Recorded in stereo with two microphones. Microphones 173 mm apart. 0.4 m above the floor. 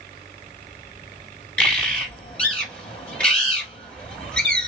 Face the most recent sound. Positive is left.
turn(degrees=5)  # may be behind; listen again after turning